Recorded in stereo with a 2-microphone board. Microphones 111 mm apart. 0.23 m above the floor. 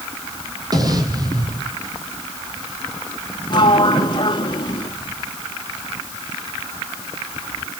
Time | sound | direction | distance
0.7 | an explosion | 35° right (ahead or behind) | 3 m
3.5 | a sliding door | 40° left (ahead or behind) | 1.5 m